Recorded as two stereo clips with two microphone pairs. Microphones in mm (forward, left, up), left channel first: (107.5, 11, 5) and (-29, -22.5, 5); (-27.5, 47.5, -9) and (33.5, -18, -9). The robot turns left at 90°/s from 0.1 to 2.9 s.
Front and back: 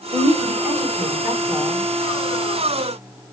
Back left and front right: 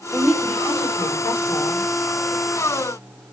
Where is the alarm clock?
No alarm clock in this recording.